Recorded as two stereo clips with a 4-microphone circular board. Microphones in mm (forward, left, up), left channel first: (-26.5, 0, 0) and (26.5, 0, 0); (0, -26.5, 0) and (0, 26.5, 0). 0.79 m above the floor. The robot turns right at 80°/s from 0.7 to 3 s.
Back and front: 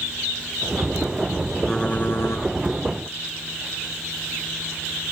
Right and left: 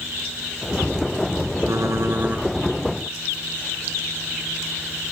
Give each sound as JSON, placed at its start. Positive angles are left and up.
{"t": 1.7, "sound": "typing on a keyboard", "azimuth_deg": 100, "distance_m": 2.5}